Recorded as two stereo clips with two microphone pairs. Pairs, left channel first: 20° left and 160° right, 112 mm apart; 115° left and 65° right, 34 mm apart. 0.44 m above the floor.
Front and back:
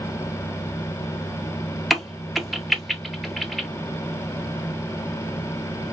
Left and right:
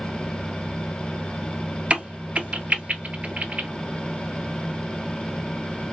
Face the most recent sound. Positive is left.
turn(degrees=-70)